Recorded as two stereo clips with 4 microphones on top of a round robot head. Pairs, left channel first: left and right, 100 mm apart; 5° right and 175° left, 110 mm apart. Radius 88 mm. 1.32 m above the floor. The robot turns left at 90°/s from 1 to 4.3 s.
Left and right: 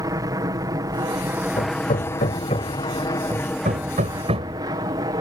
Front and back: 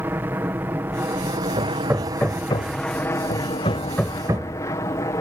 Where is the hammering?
130° left; by 4.6 s 115° right.